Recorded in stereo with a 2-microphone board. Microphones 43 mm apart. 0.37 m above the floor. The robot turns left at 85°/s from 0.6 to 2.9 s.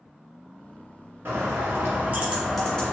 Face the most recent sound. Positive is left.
turn(degrees=150)